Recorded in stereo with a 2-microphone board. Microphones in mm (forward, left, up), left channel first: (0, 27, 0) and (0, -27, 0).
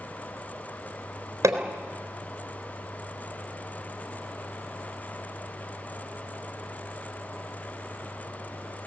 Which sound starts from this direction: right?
Hammering, at 1.4 s.